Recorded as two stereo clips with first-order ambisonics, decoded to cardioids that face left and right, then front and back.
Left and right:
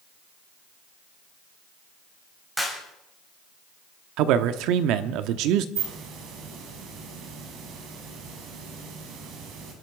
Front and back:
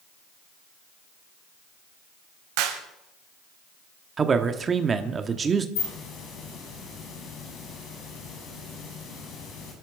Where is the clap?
175° right, 3.5 m.